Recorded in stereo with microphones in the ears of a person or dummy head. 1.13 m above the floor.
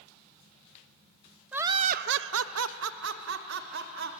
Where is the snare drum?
No snare drum in this recording.